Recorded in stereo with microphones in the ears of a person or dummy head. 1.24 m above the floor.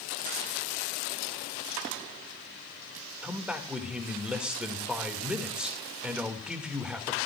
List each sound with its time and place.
3.2 s a man speaking: 5° right (ahead or behind), 2 m